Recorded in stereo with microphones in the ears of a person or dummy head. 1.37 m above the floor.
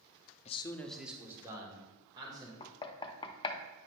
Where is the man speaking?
35° left (ahead or behind), 0.5 m; by 2.5 s 25° right (ahead or behind), 2.5 m.